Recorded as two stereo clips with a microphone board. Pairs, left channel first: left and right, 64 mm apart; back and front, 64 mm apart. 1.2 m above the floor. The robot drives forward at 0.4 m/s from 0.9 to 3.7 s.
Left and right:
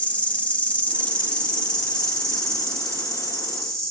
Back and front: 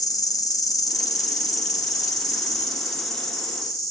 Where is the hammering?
No hammering in this recording.